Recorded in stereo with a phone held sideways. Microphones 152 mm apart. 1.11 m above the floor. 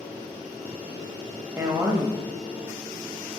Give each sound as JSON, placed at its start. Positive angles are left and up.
{"t": 1.6, "sound": "a woman speaking", "side_deg": -15, "distance_m": 0.7}